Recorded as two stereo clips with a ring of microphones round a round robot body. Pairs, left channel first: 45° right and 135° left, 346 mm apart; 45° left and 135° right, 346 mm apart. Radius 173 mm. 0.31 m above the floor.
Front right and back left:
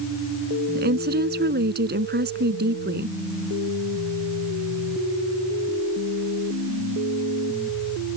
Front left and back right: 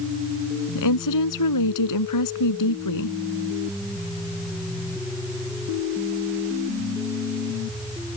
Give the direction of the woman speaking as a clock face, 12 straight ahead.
10 o'clock.